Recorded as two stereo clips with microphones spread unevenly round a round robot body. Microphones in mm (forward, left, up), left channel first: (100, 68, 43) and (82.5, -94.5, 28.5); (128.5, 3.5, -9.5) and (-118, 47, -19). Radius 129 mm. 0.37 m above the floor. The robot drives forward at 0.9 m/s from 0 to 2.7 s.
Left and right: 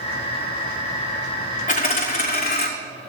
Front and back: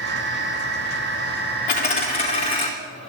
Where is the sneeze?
I don't hear a sneeze.